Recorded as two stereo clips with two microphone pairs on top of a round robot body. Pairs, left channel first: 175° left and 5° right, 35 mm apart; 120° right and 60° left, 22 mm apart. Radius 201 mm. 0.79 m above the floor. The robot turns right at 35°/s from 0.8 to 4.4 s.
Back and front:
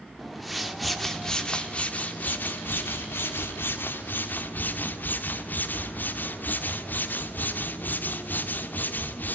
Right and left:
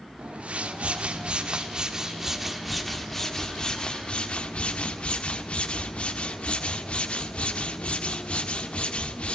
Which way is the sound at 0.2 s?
85° left.